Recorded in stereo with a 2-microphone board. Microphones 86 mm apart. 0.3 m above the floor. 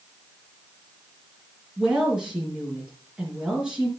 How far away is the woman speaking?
About 4 m.